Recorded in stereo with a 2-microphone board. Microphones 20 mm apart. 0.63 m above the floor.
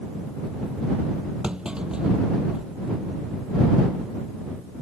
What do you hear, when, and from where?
1.4 s a clunk: 50° right (ahead or behind)